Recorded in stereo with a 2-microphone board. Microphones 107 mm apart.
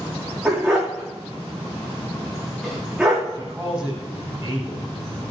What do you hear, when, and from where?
0.5 s a dog barking: centre (ahead or behind), 4.5 m
3.3 s a man speaking: 5° right (ahead or behind), 6 m